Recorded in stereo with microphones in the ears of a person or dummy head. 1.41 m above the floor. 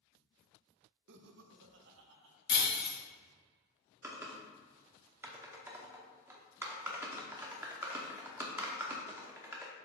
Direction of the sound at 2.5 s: 30° left (ahead or behind).